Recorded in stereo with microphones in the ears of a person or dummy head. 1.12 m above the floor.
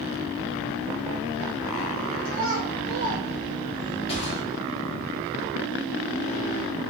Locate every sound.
2.2 s a child speaking: 70° right (ahead or behind), 1.1 m; by 4.0 s 50° left (ahead or behind), 0.8 m
4.1 s a gunshot: 30° left (ahead or behind), 1.8 m